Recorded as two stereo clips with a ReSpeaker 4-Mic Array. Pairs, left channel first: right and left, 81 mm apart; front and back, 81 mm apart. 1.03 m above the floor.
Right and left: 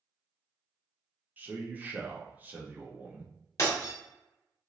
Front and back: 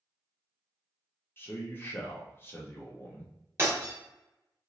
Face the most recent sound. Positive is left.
turn(degrees=-130)